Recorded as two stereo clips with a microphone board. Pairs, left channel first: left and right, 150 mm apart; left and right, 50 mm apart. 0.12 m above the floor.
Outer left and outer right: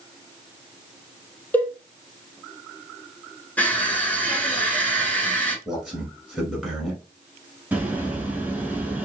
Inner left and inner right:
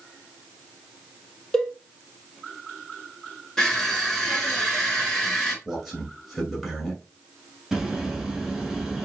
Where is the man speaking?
Centre (ahead or behind), 1.2 m.